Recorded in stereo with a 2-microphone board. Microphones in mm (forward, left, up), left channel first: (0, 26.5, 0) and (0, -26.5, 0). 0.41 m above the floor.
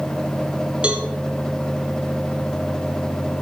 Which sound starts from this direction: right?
A cowbell, at 0.8 s.